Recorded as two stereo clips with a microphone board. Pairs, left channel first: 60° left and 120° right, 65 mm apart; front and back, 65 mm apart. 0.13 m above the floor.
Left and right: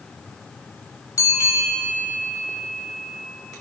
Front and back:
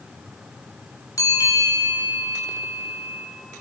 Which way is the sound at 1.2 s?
35° left.